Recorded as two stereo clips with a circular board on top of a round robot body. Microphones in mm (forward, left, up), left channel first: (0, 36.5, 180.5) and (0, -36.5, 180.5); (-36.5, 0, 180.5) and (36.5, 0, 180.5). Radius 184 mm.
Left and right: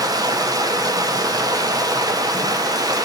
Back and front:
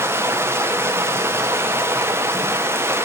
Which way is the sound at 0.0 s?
55° right.